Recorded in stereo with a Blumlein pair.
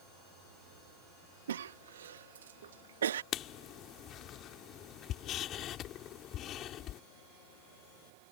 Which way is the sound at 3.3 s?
30° left.